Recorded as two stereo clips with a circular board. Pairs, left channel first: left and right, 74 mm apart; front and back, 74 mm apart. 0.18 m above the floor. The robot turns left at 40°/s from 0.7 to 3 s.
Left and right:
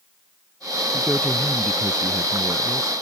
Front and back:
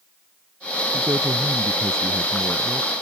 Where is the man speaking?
170° right; by 2.9 s 110° left.